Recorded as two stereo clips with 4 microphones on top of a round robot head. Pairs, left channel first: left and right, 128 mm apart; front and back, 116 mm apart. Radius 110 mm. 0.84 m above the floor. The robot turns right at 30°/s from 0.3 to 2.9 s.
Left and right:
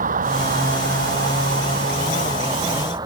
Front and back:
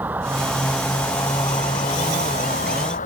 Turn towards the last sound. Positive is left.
turn(degrees=-25)